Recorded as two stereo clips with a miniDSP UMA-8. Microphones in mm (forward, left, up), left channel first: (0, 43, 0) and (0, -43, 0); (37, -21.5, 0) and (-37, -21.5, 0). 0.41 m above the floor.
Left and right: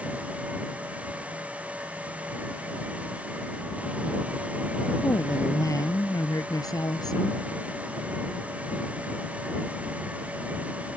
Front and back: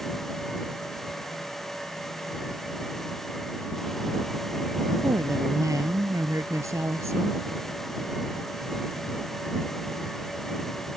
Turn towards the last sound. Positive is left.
turn(degrees=130)